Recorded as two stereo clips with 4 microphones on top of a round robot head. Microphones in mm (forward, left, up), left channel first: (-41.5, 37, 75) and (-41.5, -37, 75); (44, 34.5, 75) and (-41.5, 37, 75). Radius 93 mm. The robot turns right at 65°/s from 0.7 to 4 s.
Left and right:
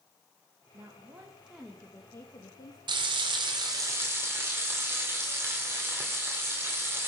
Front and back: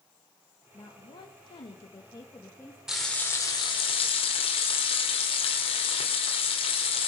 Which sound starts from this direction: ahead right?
A woman speaking, at 0.7 s.